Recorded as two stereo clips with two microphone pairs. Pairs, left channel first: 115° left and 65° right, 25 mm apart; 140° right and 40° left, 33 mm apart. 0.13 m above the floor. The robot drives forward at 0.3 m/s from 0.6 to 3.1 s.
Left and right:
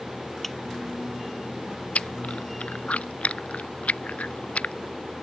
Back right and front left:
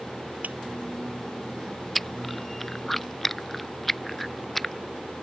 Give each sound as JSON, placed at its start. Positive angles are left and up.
{"t": 0.4, "sound": "a microwave", "azimuth_deg": 40}
{"t": 1.9, "sound": "chewing", "azimuth_deg": 125}